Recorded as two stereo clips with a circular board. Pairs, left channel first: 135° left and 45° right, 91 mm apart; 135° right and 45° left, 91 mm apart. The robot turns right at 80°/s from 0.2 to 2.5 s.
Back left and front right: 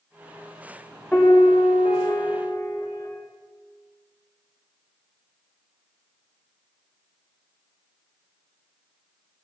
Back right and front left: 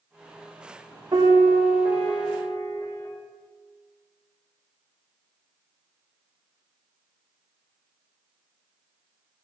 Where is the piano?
60° left, 2 m; by 3.1 s 175° left, 2 m.